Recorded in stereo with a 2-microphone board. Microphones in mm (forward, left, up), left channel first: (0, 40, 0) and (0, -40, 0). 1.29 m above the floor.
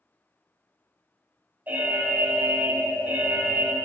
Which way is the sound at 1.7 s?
20° right (ahead or behind).